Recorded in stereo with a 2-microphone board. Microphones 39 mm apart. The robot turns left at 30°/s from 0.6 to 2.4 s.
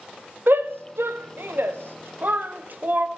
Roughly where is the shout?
Right.